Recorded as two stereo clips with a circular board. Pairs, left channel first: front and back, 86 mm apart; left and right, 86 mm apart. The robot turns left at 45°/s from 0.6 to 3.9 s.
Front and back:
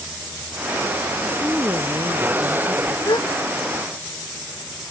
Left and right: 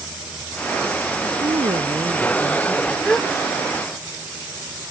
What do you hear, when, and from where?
1.2 s a woman speaking: 100° right; by 3.0 s straight behind
3.0 s a gasp: 10° left; by 3.3 s straight ahead